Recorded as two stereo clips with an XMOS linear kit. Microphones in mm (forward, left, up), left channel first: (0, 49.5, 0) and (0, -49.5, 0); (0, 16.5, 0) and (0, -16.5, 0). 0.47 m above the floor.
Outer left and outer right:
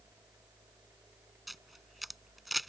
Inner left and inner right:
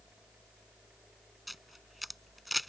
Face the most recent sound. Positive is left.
turn(degrees=0)  # may be behind; listen again after turning